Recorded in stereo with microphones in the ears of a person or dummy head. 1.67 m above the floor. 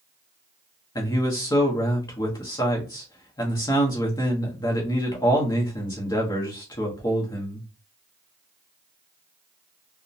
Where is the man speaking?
20° left (ahead or behind), 0.9 m.